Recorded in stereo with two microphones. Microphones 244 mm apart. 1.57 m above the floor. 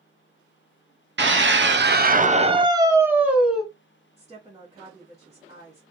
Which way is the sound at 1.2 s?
50° right (ahead or behind).